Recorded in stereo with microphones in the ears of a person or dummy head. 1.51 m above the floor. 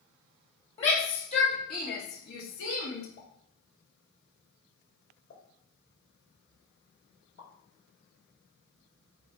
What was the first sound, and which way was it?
A shout, 35° left (ahead or behind).